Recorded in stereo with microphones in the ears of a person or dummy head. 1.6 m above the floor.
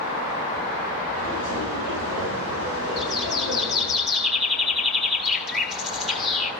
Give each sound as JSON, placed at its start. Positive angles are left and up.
{"t": 1.1, "sound": "footsteps", "side_deg": -70, "distance_m": 6.5}
{"t": 3.0, "sound": "a bird", "side_deg": 0, "distance_m": 1.7}